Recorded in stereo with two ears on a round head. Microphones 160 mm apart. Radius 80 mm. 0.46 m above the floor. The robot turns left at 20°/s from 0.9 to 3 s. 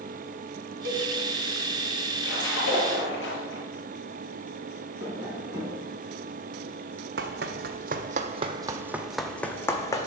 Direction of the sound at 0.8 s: 80° right.